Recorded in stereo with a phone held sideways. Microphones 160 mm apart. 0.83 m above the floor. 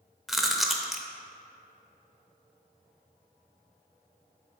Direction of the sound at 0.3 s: Centre (ahead or behind).